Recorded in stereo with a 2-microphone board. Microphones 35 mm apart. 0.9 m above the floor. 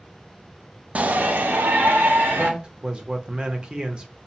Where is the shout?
45° right (ahead or behind), 0.6 m; by 2.5 s 80° right, 1.3 m.